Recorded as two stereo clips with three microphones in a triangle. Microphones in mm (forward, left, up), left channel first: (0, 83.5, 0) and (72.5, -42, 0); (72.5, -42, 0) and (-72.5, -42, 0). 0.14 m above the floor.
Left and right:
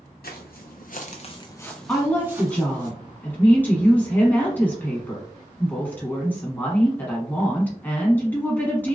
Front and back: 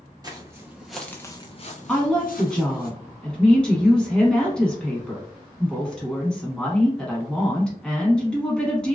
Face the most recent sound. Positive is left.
turn(degrees=70)